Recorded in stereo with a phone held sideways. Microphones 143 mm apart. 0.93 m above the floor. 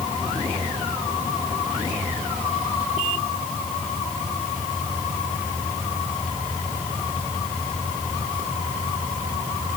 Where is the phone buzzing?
No phone buzzing in this recording.